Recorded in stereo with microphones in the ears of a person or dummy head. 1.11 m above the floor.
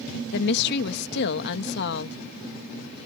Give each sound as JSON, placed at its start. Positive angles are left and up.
{"t": 0.3, "sound": "a woman speaking", "side_deg": 65}